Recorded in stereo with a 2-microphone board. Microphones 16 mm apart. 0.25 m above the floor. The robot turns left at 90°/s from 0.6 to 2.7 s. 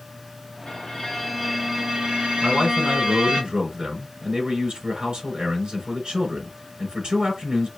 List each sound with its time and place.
0.7 s a violin: 70° left, 3.5 m; by 3.4 s 115° right, 3.5 m
2.4 s a man speaking: 65° right (ahead or behind), 3.5 m